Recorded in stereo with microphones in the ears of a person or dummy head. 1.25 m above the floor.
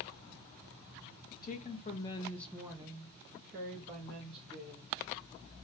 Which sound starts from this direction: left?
A woman speaking, at 1.4 s.